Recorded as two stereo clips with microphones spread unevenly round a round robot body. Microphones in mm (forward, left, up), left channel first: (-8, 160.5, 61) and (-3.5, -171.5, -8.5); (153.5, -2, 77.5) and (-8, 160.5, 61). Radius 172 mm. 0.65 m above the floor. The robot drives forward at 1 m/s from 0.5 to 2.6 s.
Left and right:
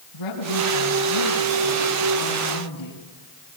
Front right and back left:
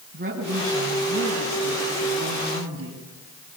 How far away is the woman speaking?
About 6 m.